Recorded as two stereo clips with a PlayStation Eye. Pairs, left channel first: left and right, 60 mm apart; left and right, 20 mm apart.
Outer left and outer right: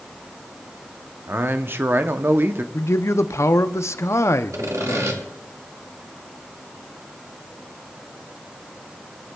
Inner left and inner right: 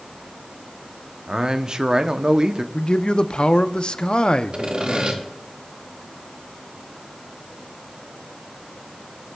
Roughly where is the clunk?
I don't hear a clunk.